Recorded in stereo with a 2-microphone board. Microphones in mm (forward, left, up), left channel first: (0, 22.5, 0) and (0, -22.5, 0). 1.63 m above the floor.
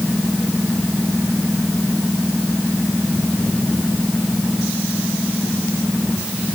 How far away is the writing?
I don't hear writing.